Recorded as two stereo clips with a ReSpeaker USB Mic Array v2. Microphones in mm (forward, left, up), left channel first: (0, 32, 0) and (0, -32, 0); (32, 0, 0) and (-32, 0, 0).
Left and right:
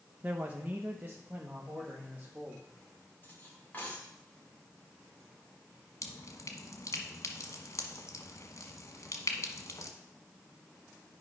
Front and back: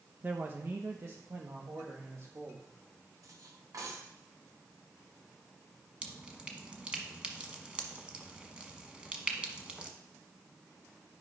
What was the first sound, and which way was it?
A man speaking, 135° right.